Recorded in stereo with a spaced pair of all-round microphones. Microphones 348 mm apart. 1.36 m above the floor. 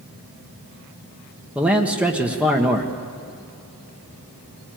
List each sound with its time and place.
1.6 s a man speaking: 5° right (ahead or behind), 1.4 m